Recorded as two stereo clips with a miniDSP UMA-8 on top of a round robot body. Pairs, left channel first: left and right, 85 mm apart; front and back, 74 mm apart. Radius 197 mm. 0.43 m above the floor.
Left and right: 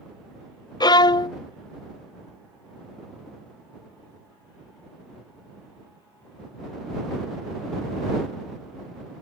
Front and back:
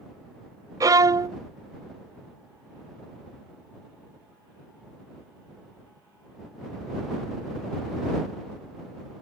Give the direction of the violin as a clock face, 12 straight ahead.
8 o'clock.